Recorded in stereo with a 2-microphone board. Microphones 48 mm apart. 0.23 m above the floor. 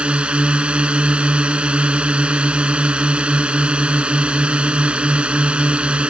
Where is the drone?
25° right (ahead or behind).